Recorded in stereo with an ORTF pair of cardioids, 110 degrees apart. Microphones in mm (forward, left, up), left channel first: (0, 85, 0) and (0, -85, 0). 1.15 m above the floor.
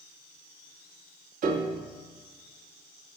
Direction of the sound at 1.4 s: 50° right.